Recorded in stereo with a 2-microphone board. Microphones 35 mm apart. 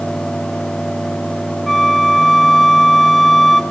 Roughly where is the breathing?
No breathing in this recording.